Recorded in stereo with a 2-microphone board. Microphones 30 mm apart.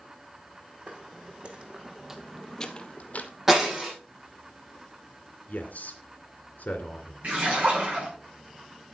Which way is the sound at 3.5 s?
10° right (ahead or behind).